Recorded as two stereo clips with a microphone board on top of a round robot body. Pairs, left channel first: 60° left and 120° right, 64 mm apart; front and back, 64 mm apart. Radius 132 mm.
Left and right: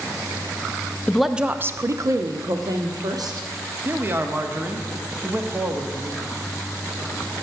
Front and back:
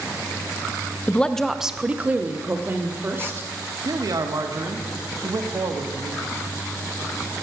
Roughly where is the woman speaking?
Ahead.